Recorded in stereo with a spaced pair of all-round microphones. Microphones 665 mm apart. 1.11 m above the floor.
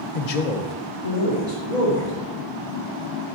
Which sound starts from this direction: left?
A man speaking, at 0.1 s.